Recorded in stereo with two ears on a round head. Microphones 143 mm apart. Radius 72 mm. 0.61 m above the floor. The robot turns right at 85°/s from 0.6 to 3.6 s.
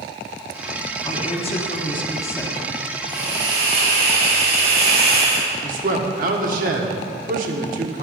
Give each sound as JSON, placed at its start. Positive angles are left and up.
{"t": 1.1, "sound": "a woman speaking", "azimuth_deg": 45, "distance_m": 1.1}
{"t": 3.1, "sound": "a hiss", "azimuth_deg": -110, "distance_m": 4.0}
{"t": 5.6, "sound": "a man speaking", "side_deg": -55, "distance_m": 1.3}